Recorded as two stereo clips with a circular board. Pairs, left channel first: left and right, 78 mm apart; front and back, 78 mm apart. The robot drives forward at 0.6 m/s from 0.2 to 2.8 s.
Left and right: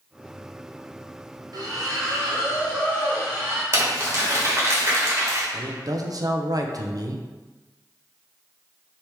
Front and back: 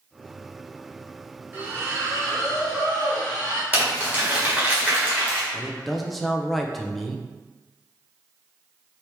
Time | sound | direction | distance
1.5 | a splash | 115° right | 1.0 m
3.7 | crumpling | 120° right | 1.5 m
5.5 | a man speaking | 90° right | 0.5 m